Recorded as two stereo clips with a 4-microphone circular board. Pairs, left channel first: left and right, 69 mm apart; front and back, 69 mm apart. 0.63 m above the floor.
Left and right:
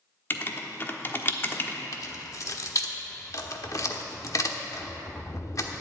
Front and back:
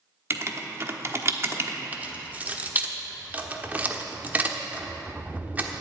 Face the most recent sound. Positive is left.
turn(degrees=115)